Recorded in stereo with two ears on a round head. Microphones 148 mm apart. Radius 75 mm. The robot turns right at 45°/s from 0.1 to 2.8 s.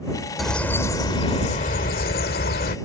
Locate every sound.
0.4 s a bird: straight ahead; by 2.8 s 105° left